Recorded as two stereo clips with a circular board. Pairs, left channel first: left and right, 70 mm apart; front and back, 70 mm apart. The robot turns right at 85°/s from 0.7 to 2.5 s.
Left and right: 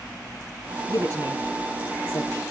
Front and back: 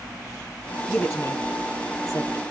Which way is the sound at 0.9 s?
70° right.